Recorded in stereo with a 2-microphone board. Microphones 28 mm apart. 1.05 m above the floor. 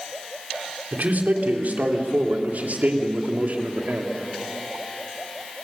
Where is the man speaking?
80° right, 3 m; by 4.1 s 65° right (ahead or behind), 2.5 m.